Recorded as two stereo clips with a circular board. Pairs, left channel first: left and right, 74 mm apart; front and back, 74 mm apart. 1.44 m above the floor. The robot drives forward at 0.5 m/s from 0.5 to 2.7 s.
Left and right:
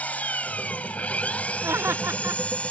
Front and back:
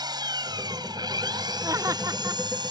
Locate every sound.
0.0 s an engine running: 160° left; by 2.7 s 165° left
1.6 s laughter: 140° right; by 2.4 s 145° right